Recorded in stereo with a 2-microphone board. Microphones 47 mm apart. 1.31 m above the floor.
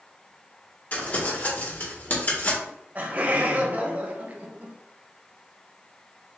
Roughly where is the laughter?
Right.